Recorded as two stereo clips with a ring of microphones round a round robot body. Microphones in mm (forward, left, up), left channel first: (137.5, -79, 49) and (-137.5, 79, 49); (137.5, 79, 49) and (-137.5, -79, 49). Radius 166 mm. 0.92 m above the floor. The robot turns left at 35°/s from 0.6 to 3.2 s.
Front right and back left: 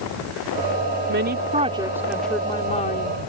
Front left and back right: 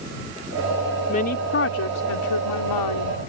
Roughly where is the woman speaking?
Left.